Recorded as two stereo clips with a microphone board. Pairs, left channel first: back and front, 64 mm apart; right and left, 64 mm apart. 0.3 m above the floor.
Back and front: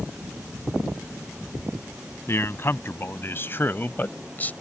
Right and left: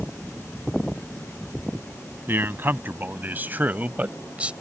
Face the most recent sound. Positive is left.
turn(degrees=145)